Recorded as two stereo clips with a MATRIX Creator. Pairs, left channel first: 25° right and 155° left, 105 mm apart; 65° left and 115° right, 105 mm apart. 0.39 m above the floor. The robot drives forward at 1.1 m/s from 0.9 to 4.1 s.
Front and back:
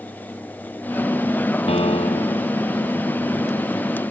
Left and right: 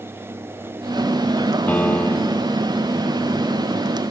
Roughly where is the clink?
No clink in this recording.